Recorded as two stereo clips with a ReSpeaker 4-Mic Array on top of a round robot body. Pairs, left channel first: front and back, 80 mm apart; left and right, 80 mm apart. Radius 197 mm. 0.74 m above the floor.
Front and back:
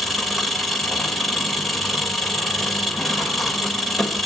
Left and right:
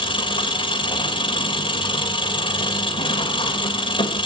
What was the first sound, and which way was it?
An engine running, 85° left.